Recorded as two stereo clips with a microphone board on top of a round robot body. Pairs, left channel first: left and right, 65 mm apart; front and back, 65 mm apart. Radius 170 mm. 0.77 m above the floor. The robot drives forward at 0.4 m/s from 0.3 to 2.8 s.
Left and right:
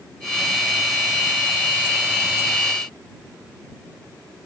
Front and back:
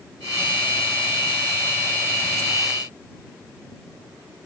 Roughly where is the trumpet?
No trumpet in this recording.